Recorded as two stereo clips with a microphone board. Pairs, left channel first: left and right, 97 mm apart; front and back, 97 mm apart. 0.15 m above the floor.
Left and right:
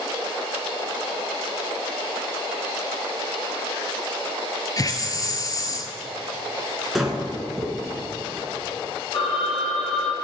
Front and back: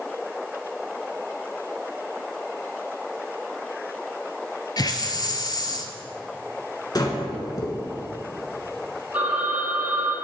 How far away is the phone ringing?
About 3 m.